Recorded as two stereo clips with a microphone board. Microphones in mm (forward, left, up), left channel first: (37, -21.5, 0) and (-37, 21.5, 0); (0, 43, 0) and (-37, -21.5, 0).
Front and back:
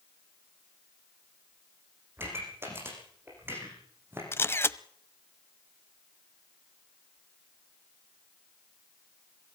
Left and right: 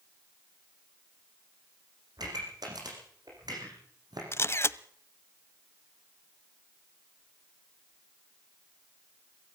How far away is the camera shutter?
About 0.8 m.